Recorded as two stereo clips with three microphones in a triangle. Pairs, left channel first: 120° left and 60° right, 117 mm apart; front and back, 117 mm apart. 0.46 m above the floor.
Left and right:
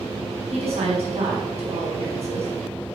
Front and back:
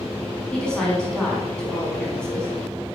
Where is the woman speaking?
80° right, 5 m.